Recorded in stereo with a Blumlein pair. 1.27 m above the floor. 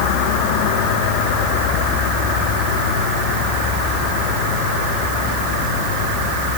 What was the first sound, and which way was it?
Only background noise.